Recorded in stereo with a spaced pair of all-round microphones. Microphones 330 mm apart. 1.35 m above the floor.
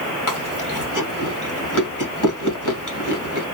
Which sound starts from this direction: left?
Chewing, at 0.3 s.